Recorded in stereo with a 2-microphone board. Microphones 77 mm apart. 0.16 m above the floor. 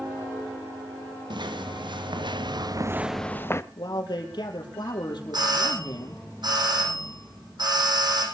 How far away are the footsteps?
About 2.5 m.